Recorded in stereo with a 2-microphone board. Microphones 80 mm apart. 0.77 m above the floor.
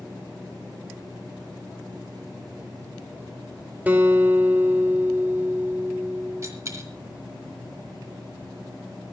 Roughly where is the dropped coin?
Right.